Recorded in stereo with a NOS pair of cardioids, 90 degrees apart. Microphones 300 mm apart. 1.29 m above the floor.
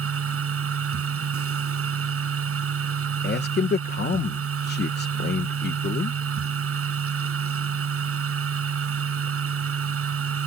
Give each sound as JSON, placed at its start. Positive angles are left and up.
{"t": 0.0, "sound": "a machine running", "azimuth_deg": -50}
{"t": 3.2, "sound": "a man speaking", "azimuth_deg": 35}